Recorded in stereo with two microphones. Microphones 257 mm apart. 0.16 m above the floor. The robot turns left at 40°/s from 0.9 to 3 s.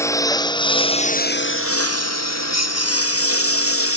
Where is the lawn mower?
10° left (ahead or behind); by 4.0 s 60° left (ahead or behind).